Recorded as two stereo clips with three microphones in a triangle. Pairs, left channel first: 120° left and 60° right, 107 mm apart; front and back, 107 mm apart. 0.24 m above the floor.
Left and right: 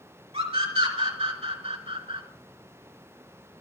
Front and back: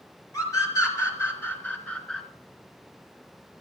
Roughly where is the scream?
Ahead right.